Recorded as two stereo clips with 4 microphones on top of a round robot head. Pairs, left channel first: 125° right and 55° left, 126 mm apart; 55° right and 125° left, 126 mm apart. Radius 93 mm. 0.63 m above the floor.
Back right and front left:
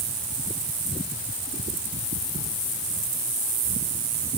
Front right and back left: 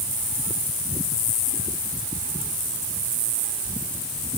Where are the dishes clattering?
I don't hear dishes clattering.